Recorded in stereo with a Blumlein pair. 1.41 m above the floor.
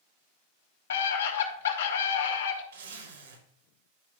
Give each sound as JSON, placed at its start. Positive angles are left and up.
{"t": 0.9, "sound": "a scream", "azimuth_deg": 65, "distance_m": 3.0}
{"t": 2.7, "sound": "a zipper", "azimuth_deg": -60, "distance_m": 3.5}